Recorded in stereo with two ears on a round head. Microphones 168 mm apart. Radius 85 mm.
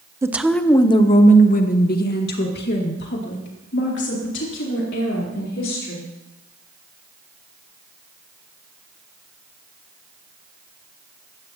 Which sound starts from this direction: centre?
A woman speaking, at 0.2 s.